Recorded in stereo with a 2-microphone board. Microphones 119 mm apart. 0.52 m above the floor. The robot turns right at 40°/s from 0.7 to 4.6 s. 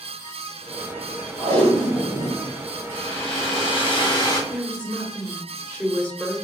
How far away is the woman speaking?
About 1.1 m.